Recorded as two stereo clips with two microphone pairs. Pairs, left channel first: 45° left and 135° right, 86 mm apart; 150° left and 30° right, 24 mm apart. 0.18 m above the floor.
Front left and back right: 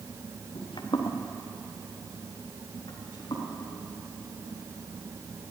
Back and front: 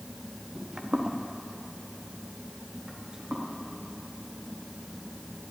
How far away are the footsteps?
About 1.4 m.